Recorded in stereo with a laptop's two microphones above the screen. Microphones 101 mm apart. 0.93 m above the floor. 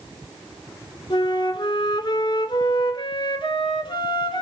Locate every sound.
1.1 s a flute: 50° left (ahead or behind), 2.5 m